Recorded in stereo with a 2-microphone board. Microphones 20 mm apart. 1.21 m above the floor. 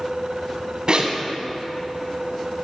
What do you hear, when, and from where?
0.9 s a zipper: 40° right (ahead or behind), 1.6 m